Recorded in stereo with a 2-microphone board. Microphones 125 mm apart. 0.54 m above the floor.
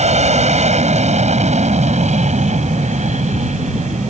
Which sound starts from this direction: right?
An aircraft, at 0.0 s.